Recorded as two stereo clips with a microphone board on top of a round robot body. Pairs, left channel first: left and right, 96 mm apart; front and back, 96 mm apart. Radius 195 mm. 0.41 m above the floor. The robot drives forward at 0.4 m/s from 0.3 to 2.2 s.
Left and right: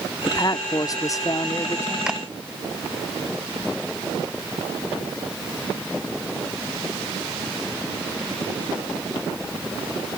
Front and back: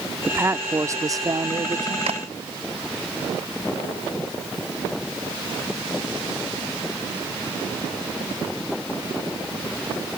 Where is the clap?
175° right.